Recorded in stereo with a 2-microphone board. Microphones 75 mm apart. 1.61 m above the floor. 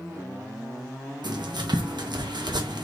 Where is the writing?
70° right (ahead or behind), 1.4 m.